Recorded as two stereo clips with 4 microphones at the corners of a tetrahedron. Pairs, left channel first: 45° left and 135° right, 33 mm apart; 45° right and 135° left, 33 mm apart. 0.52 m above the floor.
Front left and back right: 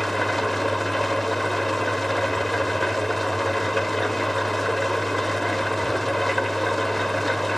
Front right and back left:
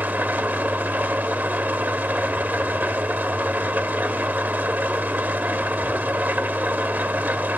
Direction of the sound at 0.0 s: 135° left.